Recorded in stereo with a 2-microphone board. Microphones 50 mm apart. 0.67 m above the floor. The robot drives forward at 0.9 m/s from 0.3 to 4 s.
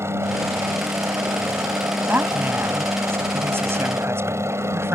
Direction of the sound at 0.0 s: 60° right (ahead or behind).